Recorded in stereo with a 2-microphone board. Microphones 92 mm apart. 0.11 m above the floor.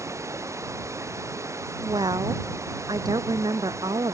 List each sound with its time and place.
0.0 s running water: 35° right (ahead or behind)
1.8 s a woman speaking: 50° right (ahead or behind)